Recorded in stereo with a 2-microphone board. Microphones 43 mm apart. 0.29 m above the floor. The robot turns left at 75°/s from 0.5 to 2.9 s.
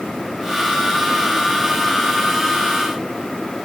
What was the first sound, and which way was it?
Only background noise.